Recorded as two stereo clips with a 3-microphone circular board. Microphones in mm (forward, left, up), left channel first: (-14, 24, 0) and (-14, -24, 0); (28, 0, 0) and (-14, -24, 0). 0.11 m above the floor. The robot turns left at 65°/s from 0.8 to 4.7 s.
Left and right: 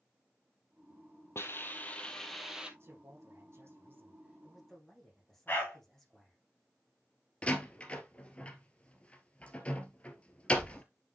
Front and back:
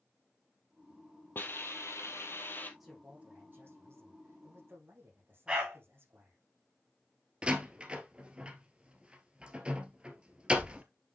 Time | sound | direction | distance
1.4 | a hiss | 70° left | 1.7 m
2.8 | a man speaking | 60° right | 5.5 m
5.5 | a dog barking | 140° left | 4.5 m
7.4 | a door slam | 150° left | 1.8 m